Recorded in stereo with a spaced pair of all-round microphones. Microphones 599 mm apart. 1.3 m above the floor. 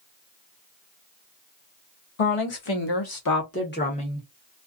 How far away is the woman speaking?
About 1.0 m.